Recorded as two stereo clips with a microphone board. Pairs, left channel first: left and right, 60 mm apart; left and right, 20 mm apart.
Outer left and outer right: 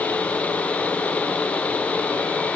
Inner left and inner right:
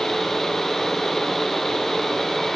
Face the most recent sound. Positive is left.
No sound to turn to.